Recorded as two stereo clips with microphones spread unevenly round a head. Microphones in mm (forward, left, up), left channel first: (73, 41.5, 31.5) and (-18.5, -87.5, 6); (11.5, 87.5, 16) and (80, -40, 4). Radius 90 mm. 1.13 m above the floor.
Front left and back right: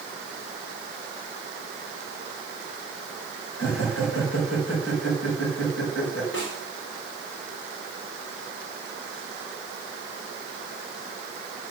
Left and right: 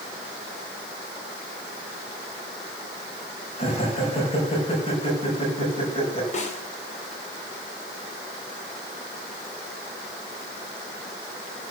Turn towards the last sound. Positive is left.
turn(degrees=80)